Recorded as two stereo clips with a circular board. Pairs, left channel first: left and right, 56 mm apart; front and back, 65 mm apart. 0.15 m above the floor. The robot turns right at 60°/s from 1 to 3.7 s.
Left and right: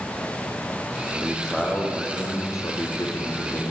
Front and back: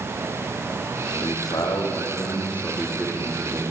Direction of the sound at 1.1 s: 20° right.